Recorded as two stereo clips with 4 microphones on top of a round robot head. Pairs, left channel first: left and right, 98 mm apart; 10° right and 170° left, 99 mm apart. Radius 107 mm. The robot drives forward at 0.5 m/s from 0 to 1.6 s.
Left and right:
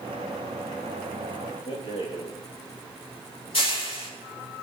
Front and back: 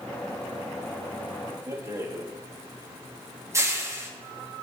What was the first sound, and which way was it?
A rattle, 115° left.